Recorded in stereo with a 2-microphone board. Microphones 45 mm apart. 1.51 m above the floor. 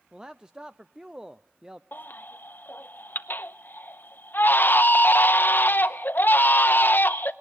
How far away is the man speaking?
About 0.5 m.